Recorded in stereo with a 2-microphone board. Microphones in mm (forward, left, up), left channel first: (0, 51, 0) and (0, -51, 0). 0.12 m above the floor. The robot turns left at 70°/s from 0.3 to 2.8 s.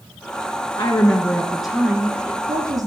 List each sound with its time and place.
0.8 s a woman speaking: 55° left, 1.7 m; by 2.9 s 85° right, 1.7 m